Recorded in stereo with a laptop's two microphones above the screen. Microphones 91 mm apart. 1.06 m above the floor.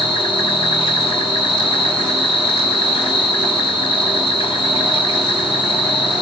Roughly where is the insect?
Left.